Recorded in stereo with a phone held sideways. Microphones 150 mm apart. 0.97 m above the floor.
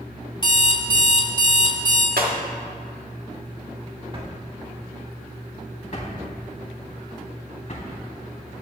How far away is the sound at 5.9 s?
About 3.5 m.